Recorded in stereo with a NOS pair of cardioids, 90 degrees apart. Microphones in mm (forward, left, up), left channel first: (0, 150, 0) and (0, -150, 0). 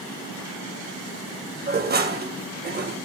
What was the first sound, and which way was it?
Dishes clattering, 35° right.